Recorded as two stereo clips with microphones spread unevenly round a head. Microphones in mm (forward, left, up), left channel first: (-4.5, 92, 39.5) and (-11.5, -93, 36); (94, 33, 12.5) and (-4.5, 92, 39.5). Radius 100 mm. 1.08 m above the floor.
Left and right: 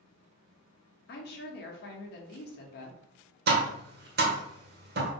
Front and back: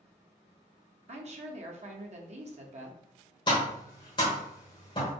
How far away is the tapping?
About 0.9 m.